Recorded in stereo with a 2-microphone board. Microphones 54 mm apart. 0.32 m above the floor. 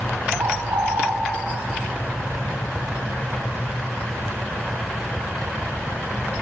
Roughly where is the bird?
Right.